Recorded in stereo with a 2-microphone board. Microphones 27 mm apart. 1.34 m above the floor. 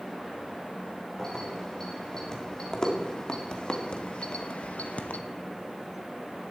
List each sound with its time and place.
1.2 s keys jangling: 20° left (ahead or behind), 4 m; by 5.2 s 70° left (ahead or behind), 1.0 m